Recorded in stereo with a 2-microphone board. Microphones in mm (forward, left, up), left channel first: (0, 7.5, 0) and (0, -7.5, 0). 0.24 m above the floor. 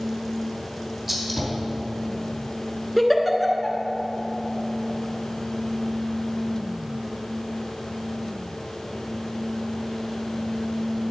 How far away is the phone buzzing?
No phone buzzing in this recording.